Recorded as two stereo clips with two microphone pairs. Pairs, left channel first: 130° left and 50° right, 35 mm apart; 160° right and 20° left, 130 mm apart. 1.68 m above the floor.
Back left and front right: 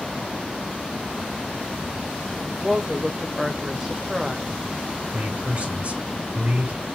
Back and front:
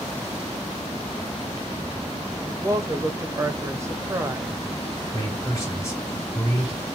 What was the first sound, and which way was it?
A woman speaking, 10° left.